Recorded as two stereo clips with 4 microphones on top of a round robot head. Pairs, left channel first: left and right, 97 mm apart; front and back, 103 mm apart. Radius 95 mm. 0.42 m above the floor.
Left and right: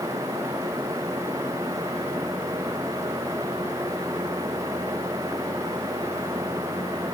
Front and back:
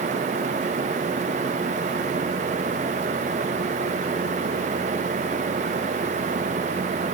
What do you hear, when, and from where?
Only background noise.